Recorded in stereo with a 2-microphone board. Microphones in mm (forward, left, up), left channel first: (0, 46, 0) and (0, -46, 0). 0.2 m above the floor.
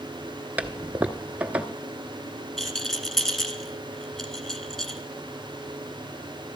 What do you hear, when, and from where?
0.6 s a toilet flushing: 15° right (ahead or behind), 0.8 m
2.6 s a rattle: 5° left (ahead or behind), 1.4 m